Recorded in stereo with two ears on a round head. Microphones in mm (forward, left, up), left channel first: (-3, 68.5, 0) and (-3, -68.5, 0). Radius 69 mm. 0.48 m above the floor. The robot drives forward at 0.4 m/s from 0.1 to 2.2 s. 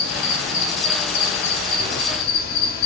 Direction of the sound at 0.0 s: 80° left.